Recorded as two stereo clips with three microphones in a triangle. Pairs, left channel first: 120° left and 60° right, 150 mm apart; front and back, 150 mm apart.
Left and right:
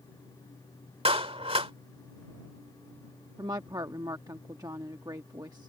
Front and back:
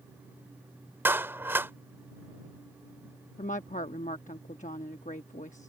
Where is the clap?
105° right.